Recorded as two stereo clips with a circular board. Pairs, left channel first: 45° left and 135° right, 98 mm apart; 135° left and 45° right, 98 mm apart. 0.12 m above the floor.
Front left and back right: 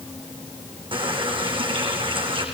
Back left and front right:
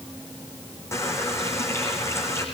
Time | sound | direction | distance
0.9 | a running tap | 165° right | 5.5 m